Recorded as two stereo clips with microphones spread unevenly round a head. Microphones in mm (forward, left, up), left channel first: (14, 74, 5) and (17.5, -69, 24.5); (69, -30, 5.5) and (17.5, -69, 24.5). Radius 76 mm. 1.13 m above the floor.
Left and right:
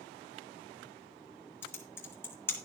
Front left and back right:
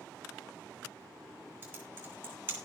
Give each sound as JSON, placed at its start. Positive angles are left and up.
{"t": 1.6, "sound": "typing on a keyboard", "azimuth_deg": 170, "distance_m": 1.4}